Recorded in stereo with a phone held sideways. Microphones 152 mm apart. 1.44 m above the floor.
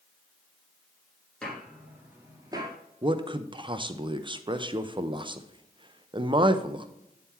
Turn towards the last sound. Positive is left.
turn(degrees=-30)  # may be behind; listen again after turning